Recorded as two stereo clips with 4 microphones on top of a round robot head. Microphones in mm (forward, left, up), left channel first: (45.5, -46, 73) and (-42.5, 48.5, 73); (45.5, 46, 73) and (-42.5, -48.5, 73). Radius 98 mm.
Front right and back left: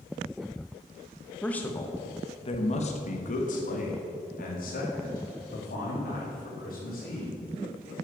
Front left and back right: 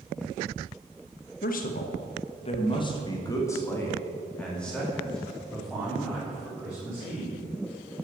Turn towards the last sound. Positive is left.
turn(degrees=-50)